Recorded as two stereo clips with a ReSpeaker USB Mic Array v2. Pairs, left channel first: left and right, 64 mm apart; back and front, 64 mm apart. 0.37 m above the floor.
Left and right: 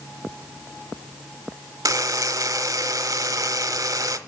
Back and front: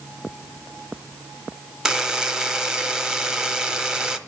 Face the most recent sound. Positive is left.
turn(degrees=-80)